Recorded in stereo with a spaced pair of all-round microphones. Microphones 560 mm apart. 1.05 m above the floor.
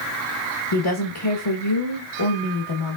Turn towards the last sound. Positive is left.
turn(degrees=55)  # may be behind; listen again after turning